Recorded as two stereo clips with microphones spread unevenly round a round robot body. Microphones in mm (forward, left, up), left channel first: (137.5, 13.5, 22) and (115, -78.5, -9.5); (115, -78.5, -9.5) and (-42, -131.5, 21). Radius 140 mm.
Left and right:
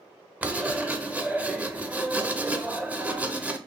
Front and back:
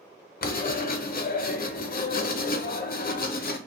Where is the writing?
20° right, 0.6 m.